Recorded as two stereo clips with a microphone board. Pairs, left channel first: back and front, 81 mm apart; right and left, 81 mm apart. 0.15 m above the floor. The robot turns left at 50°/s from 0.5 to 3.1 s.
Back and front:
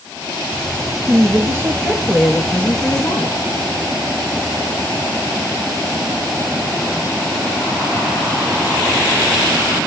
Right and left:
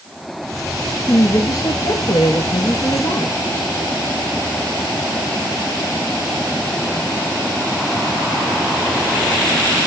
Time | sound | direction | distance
1.1 | a woman speaking | 30° right | 3.5 m